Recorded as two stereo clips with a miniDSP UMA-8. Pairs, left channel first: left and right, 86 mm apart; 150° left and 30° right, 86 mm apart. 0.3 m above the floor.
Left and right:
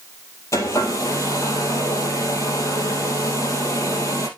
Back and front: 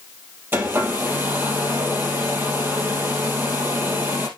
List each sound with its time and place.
0.5 s a hair dryer: 35° left, 2.5 m